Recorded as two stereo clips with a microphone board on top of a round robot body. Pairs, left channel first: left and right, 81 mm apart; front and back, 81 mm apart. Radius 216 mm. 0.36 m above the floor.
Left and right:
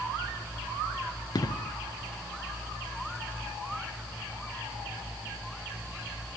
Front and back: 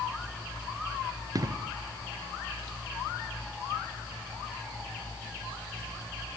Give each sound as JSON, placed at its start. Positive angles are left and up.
{"t": 1.4, "sound": "an explosion", "azimuth_deg": 135}